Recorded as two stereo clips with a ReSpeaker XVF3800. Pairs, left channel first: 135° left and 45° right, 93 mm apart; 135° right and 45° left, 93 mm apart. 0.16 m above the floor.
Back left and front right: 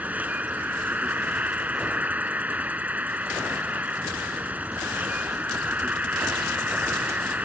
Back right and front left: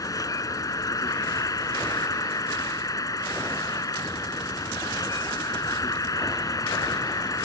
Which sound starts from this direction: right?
An insect, at 0.0 s.